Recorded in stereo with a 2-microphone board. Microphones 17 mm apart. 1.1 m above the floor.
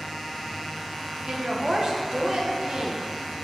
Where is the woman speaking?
50° right (ahead or behind), 1.4 m.